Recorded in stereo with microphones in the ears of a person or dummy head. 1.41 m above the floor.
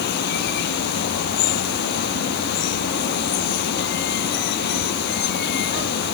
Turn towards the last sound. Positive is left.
turn(degrees=60)  # may be behind; listen again after turning